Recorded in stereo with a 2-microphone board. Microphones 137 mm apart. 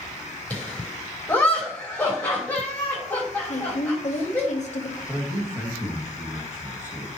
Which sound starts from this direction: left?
A woman speaking, at 3.5 s.